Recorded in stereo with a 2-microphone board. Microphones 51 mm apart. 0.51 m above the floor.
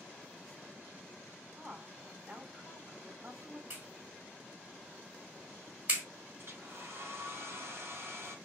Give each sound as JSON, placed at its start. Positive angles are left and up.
{"t": 1.6, "sound": "a woman speaking", "side_deg": -30, "distance_m": 3.0}
{"t": 3.7, "sound": "a clap", "side_deg": -35, "distance_m": 4.0}
{"t": 6.4, "sound": "a hair dryer", "side_deg": -55, "distance_m": 3.0}